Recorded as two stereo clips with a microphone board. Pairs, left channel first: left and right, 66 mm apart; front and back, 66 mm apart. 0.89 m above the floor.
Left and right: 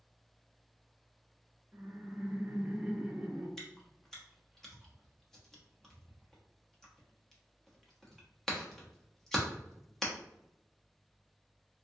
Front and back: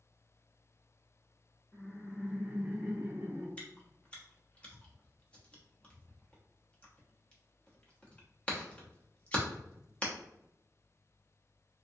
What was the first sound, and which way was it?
Laughter, 55° right.